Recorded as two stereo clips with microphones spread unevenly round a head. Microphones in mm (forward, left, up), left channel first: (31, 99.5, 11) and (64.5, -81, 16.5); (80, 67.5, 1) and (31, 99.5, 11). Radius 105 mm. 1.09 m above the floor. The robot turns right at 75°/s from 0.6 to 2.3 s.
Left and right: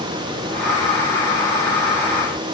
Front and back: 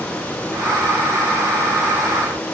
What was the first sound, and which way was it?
Only background noise.